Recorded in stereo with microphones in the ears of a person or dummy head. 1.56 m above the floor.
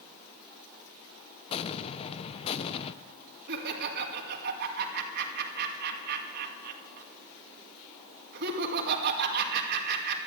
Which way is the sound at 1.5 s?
35° left (ahead or behind).